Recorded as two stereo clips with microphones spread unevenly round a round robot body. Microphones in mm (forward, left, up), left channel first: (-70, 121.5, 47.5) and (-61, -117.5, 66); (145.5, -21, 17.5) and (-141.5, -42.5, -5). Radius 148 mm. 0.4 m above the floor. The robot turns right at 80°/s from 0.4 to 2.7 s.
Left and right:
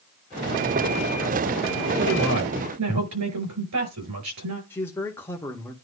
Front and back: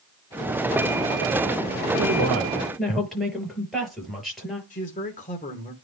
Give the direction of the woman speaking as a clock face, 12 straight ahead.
5 o'clock.